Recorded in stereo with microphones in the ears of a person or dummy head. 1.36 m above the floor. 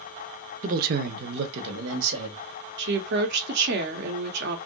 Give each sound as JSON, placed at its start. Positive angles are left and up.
{"t": 0.6, "sound": "a man speaking", "side_deg": -40, "distance_m": 0.6}
{"t": 2.8, "sound": "a woman speaking", "side_deg": -60, "distance_m": 1.0}